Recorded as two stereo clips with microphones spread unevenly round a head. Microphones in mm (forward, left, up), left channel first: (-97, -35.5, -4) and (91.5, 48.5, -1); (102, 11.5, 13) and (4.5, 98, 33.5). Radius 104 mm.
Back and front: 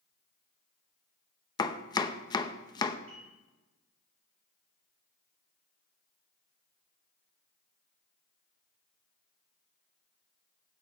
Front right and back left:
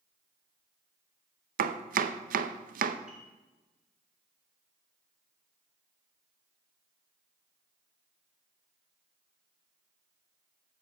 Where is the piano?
55° left, 4 m.